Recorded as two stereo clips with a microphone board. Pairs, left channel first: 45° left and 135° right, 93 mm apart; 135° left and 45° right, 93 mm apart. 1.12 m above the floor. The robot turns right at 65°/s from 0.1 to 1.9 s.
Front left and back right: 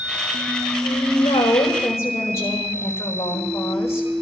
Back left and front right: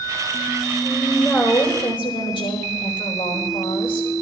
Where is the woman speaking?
35° left, 4.5 m; by 4.1 s 105° left, 4.5 m.